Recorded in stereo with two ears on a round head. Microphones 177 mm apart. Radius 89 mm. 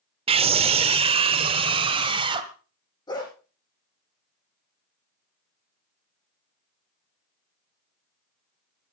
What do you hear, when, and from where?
0.3 s a scream: 30° right (ahead or behind), 0.9 m; by 2.5 s 25° right (ahead or behind), 2.0 m
3.1 s a dog barking: 25° left (ahead or behind), 6.5 m